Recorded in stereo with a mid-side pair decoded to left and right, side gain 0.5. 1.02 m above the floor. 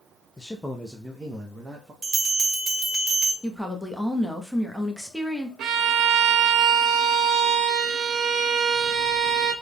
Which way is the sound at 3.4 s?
10° left.